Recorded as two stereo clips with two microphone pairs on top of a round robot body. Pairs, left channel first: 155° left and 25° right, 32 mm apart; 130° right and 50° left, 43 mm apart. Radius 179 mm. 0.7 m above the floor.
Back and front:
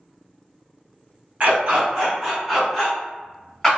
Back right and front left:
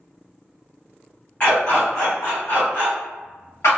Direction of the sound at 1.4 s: 70° right.